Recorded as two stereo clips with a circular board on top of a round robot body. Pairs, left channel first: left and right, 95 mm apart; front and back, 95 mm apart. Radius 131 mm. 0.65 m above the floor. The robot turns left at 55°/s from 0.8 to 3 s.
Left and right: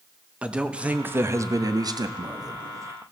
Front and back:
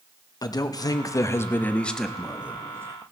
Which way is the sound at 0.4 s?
15° right.